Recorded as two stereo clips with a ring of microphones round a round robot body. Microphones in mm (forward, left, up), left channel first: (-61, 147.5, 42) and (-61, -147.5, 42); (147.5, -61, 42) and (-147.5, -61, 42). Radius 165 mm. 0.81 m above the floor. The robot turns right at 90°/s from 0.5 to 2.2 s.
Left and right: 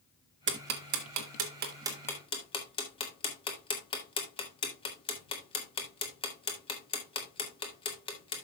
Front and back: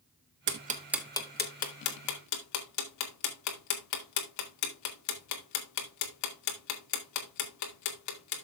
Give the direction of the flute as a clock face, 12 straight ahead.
I don't hear a flute.